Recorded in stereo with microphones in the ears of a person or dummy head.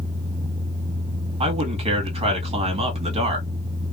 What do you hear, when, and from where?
1.4 s a man speaking: 25° right (ahead or behind), 1.8 m